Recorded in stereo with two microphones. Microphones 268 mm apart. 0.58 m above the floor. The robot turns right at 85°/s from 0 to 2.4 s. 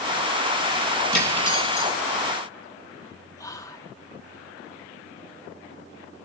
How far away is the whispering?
About 0.6 m.